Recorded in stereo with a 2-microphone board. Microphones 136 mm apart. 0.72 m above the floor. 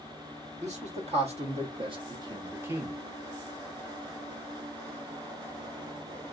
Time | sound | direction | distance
0.6 | a man speaking | 55° right (ahead or behind) | 1.4 m